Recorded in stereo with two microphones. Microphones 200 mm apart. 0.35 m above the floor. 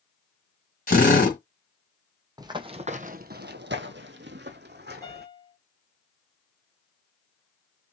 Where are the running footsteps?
20° right (ahead or behind), 0.8 m; by 5.2 s 55° right (ahead or behind), 1.2 m.